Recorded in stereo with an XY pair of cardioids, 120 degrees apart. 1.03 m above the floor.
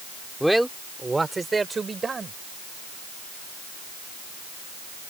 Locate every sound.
0.4 s a man speaking: straight ahead; by 2.3 s 30° right